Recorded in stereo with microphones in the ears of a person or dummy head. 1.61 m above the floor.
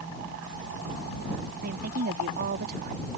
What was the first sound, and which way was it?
A woman speaking, 55° right (ahead or behind).